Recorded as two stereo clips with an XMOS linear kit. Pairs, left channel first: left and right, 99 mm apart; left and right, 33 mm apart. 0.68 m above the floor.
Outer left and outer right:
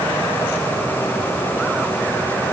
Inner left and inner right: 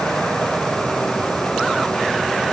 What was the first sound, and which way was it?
Only background noise.